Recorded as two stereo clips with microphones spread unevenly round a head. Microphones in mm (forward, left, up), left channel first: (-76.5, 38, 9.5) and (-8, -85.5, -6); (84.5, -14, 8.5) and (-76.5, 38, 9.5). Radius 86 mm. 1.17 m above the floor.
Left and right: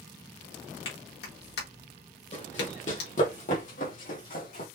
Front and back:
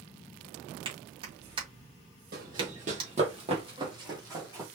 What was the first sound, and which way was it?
A clap, 100° left.